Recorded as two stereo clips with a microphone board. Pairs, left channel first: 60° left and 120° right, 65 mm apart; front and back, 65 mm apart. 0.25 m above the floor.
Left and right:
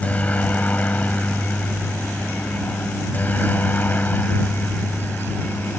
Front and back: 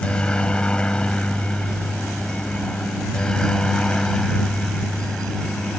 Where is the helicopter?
45° left; by 5.8 s 70° left.